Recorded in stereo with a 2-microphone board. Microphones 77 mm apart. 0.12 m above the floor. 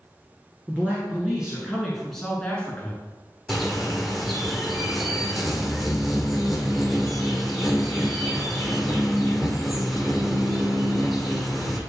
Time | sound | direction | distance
0.7 | a man speaking | 20° right (ahead or behind) | 1.8 m
3.5 | a bird | centre (ahead or behind) | 1.1 m